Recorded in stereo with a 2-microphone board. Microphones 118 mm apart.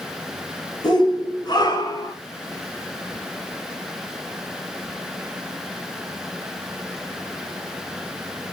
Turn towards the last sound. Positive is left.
turn(degrees=35)  # may be behind; listen again after turning